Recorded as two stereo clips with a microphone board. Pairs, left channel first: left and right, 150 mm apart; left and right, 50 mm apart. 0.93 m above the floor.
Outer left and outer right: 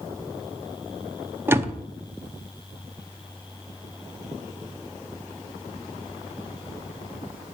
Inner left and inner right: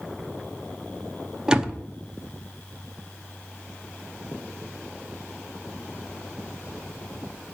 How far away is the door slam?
About 0.8 m.